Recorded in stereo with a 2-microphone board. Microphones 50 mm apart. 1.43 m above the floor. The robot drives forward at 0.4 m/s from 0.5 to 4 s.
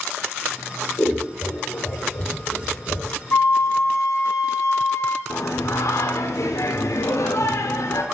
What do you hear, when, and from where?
1.0 s scissors: 40° left (ahead or behind), 1.7 m; by 3.1 s 65° left (ahead or behind), 1.2 m
3.3 s a flute: 60° left (ahead or behind), 0.9 m; by 5.2 s 70° left (ahead or behind), 0.8 m
5.3 s singing: 75° left (ahead or behind), 0.6 m